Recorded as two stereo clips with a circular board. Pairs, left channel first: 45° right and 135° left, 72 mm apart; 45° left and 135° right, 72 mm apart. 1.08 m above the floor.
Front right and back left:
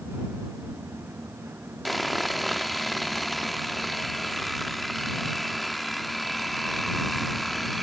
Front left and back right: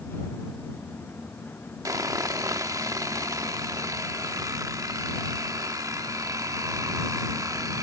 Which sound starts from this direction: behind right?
Sawing, at 1.9 s.